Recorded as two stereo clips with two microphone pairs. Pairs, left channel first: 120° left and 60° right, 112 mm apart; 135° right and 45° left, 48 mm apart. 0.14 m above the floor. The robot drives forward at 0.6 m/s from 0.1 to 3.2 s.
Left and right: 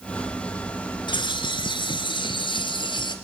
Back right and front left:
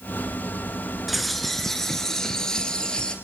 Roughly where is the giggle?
No giggle in this recording.